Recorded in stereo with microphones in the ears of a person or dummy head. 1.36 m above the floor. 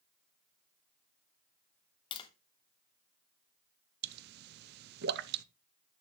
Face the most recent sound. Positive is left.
turn(degrees=-50)  # may be behind; listen again after turning